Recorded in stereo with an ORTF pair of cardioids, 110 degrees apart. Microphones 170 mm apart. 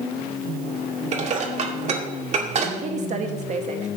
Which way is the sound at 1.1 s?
45° right.